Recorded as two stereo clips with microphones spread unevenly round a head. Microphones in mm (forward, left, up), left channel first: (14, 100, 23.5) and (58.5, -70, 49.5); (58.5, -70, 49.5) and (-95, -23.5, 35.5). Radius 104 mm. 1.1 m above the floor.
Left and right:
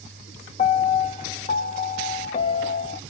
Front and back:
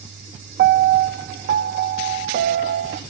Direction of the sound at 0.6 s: 155° left.